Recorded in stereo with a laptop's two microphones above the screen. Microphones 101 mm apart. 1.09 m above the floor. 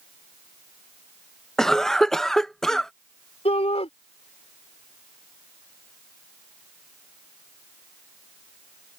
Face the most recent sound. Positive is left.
turn(degrees=80)